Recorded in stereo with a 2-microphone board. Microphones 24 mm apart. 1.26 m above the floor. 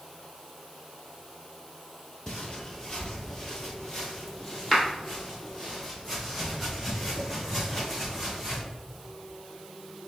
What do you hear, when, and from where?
2.3 s footsteps: 25° left (ahead or behind), 1.4 m; by 8.6 s 5° right (ahead or behind), 4 m